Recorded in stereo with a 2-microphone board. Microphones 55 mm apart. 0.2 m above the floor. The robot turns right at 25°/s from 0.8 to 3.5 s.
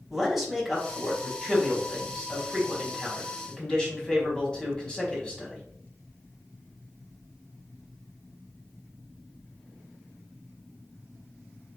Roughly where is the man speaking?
Centre.